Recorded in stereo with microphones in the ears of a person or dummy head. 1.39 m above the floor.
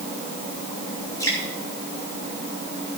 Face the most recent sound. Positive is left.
turn(degrees=15)  # may be behind; listen again after turning